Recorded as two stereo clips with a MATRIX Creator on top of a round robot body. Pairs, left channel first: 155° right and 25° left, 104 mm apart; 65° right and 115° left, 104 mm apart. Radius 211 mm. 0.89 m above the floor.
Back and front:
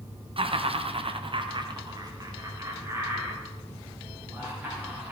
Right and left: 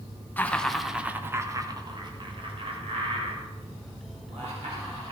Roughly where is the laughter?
Ahead.